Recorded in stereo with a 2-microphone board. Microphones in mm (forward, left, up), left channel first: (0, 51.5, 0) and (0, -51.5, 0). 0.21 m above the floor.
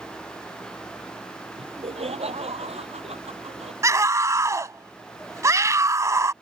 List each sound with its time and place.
1.6 s laughter: 80° right
3.8 s a scream: 30° right (ahead or behind)